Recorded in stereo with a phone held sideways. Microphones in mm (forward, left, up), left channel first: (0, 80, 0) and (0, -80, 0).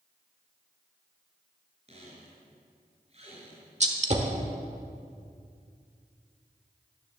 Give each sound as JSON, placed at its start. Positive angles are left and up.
{"t": 1.9, "sound": "a squeak", "side_deg": -40, "distance_m": 4.0}
{"t": 3.8, "sound": "a gunshot", "side_deg": -45, "distance_m": 1.2}